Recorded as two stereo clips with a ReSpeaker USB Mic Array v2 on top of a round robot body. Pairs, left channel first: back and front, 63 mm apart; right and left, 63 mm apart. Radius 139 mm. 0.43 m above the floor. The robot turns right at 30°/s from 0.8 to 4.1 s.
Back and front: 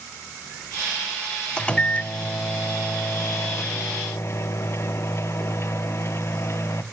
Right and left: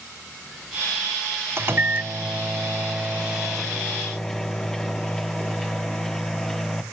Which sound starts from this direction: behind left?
A microwave, at 1.6 s.